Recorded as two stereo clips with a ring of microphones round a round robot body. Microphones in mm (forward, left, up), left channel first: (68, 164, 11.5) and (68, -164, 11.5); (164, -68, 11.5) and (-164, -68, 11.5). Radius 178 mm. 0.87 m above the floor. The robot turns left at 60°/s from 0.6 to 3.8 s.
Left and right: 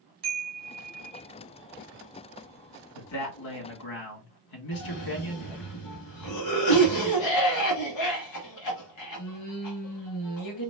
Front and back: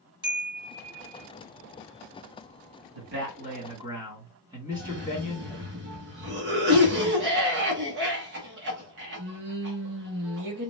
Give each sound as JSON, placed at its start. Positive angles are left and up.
{"t": 0.2, "sound": "a chime", "azimuth_deg": -75, "distance_m": 2.5}
{"t": 3.0, "sound": "a man speaking", "azimuth_deg": 150, "distance_m": 2.0}
{"t": 4.7, "sound": "a cough", "azimuth_deg": 125, "distance_m": 1.5}